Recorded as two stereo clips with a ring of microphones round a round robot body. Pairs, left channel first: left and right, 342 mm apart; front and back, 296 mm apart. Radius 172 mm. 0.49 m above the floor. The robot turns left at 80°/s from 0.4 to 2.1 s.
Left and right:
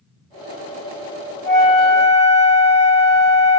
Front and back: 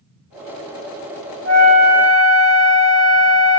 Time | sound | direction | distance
1.4 | a flute | 145° left | 1.7 m